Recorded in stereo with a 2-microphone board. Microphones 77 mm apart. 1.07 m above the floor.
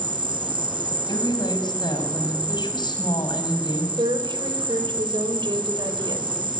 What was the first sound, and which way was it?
An insect, 80° right.